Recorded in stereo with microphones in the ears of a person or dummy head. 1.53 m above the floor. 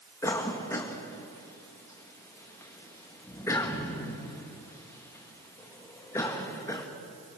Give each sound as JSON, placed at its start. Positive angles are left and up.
{"t": 0.2, "sound": "a cough", "side_deg": 20, "distance_m": 2.0}